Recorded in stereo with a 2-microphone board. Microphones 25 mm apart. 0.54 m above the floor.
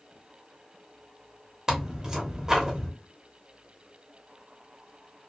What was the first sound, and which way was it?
Tearing paper, 20° right (ahead or behind).